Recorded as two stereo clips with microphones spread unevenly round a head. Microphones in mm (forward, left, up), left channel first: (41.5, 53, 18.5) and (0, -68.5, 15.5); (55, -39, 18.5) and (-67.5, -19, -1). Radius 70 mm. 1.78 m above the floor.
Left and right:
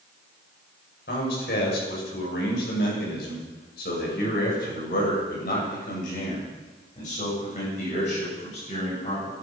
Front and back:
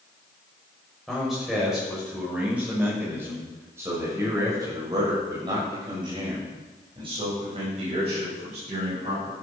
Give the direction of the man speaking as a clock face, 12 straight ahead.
9 o'clock.